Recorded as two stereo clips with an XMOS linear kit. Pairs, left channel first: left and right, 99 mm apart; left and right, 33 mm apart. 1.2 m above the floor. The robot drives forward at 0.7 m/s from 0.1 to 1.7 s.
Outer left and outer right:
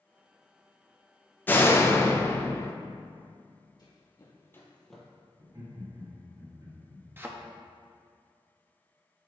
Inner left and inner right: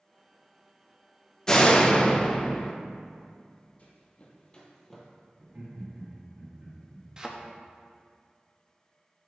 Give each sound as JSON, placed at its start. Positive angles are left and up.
{"t": 1.5, "sound": "a door slam", "side_deg": 20, "distance_m": 0.6}
{"t": 3.8, "sound": "running footsteps", "side_deg": 45, "distance_m": 1.9}
{"t": 5.4, "sound": "laughter", "side_deg": -45, "distance_m": 2.5}
{"t": 7.2, "sound": "a thud", "side_deg": -20, "distance_m": 0.6}